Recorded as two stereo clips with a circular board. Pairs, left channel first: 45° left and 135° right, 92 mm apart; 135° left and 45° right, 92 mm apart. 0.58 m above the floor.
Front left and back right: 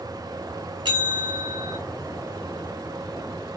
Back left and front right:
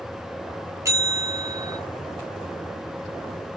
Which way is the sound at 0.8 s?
100° right.